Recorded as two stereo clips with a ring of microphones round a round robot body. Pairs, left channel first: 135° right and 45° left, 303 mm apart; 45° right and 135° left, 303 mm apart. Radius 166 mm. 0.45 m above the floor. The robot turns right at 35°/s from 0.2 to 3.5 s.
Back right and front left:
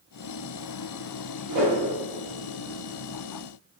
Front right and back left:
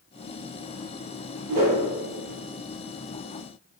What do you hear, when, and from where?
1.5 s a whoosh: 75° left, 1.9 m; by 1.8 s 85° left, 1.9 m